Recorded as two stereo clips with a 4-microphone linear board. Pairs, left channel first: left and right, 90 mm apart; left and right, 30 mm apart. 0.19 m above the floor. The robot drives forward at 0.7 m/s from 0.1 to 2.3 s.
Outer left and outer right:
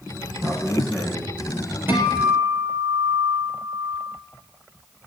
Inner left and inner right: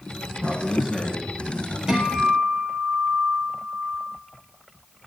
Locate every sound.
0.3 s a man speaking: 35° right (ahead or behind), 9 m; by 1.8 s 30° right (ahead or behind), 10 m
1.9 s a guitar: 25° right (ahead or behind), 3.5 m; by 4.1 s 20° right (ahead or behind), 4 m